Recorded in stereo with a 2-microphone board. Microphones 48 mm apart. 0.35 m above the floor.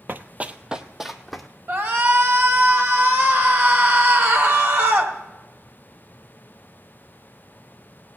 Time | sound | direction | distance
0.1 | running footsteps | 50° right (ahead or behind) | 0.5 m
1.7 | a shout | 50° right (ahead or behind) | 1.8 m